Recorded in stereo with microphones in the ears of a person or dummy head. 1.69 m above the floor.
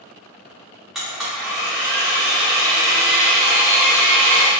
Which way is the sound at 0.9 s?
Centre (ahead or behind).